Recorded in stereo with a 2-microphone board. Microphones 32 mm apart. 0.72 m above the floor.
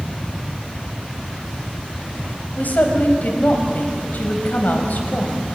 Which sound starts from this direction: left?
A woman speaking, at 2.6 s.